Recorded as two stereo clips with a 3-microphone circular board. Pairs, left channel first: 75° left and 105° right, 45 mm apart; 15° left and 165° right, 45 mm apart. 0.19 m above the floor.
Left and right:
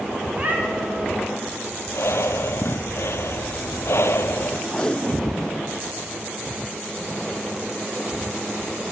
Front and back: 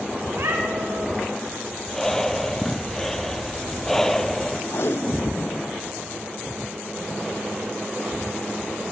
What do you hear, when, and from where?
0.3 s a cat meowing: 160° right, 4 m
1.9 s breathing: 100° left, 1.0 m
4.7 s tape being pulled: 5° left, 0.7 m